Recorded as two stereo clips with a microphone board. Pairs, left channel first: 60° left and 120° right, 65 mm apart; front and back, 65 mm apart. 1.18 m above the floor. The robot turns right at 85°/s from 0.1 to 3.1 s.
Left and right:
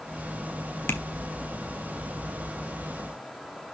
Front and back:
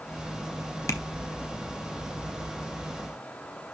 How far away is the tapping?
About 1.2 m.